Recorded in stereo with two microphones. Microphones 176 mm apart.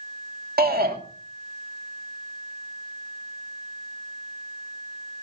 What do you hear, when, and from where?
0.6 s a shout: 60° right (ahead or behind), 2 m